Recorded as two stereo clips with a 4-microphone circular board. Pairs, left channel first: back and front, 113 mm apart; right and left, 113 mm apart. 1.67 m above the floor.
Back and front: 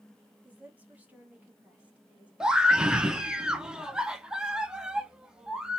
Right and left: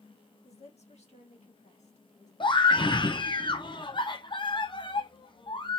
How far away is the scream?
About 0.8 m.